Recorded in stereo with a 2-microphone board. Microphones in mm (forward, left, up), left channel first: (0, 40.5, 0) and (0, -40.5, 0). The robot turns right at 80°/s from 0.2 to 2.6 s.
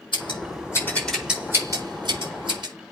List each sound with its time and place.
0.1 s scissors: 80° left, 4.5 m; by 2.7 s 65° right (ahead or behind), 4.5 m